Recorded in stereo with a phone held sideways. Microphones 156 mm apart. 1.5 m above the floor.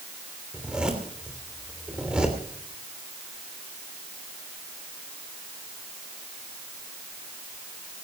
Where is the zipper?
5° right (ahead or behind), 3 m.